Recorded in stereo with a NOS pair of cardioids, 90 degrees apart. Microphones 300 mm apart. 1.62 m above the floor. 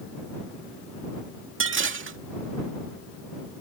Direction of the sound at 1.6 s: 45° right.